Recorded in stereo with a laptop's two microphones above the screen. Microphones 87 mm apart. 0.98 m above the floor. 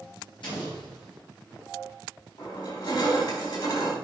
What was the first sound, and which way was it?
An explosion, 65° left (ahead or behind).